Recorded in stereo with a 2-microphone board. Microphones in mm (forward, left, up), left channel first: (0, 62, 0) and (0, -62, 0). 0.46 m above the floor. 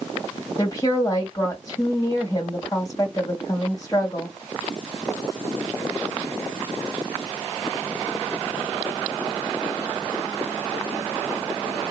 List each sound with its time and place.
0.6 s a woman speaking: 35° left (ahead or behind), 2 m